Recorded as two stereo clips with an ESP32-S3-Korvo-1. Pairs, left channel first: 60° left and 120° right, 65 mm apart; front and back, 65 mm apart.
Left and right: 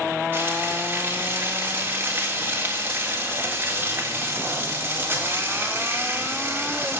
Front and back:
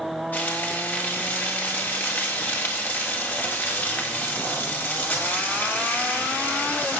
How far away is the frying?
About 4 m.